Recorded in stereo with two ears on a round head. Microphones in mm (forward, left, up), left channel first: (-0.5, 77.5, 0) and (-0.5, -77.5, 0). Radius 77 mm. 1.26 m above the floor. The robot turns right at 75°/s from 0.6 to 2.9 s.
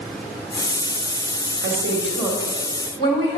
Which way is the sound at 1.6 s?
70° right.